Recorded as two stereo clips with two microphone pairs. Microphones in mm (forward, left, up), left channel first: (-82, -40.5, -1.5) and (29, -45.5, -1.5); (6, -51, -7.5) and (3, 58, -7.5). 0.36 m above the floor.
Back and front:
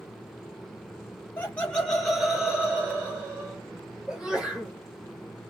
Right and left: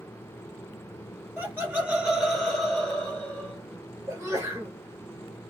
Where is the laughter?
130° left, 1.4 m; by 3.6 s 35° right, 1.5 m.